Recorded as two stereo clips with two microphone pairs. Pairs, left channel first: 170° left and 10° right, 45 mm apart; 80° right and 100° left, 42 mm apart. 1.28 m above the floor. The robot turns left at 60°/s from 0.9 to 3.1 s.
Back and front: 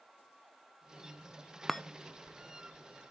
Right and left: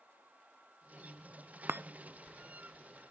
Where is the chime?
95° left, 0.7 m; by 1.8 s 85° left, 0.7 m.